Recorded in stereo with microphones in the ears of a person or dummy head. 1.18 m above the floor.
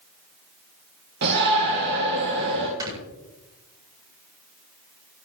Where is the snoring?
15° right (ahead or behind), 8.5 m.